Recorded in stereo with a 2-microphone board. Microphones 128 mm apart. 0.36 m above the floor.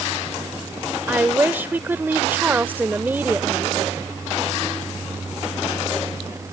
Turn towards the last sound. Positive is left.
turn(degrees=-15)  # may be behind; listen again after turning